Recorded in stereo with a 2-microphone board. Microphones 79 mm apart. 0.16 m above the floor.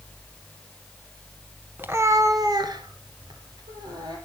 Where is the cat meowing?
25° right (ahead or behind), 0.9 m; by 4.2 s 60° right (ahead or behind), 2.5 m.